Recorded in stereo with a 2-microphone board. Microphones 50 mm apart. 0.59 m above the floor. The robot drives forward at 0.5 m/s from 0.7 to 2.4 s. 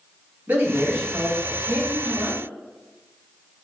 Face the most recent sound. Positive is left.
turn(degrees=-45)  # may be behind; listen again after turning